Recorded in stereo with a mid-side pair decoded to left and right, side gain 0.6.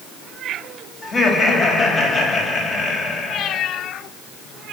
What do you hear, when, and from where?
1.0 s laughter: 30° left, 6 m